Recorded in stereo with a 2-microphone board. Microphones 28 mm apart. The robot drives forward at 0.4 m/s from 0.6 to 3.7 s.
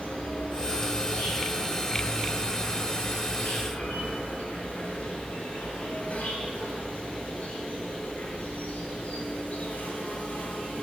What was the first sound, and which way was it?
An insect, 70° left (ahead or behind).